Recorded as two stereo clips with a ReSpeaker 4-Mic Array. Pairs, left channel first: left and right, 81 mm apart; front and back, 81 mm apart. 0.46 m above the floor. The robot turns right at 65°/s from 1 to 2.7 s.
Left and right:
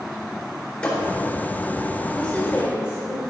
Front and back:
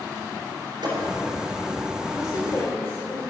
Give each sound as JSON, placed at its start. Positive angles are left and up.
{"t": 0.8, "sound": "a thud", "azimuth_deg": 165, "distance_m": 3.5}
{"t": 2.1, "sound": "a woman speaking", "azimuth_deg": 5, "distance_m": 1.9}